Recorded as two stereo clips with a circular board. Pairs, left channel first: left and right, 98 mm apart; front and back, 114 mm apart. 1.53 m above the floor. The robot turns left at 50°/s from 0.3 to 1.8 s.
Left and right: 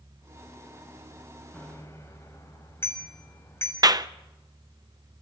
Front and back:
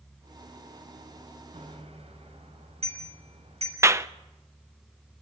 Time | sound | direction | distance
1.5 | a bicycle bell | 165° left | 6.5 m
3.8 | a clap | 120° right | 0.7 m